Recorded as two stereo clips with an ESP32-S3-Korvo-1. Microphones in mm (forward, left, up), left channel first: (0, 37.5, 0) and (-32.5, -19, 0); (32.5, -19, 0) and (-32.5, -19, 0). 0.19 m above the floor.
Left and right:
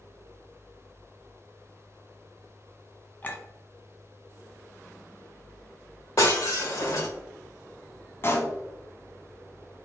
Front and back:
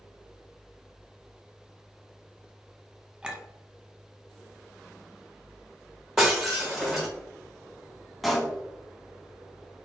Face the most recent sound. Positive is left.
turn(degrees=90)